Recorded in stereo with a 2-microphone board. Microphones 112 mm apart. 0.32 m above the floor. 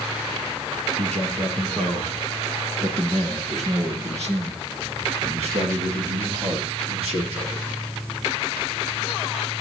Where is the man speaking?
80° right, 5.5 m; by 7.7 s 60° right (ahead or behind), 7.5 m.